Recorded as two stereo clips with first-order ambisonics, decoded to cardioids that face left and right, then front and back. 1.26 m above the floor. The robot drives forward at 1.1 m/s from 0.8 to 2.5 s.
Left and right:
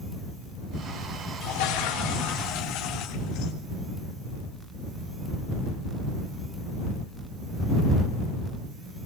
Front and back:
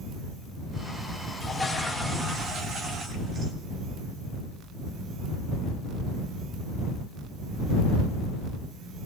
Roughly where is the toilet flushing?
Left.